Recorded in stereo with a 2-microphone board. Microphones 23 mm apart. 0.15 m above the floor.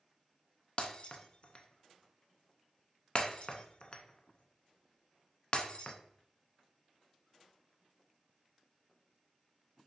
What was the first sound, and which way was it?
Breaking glass, 40° left (ahead or behind).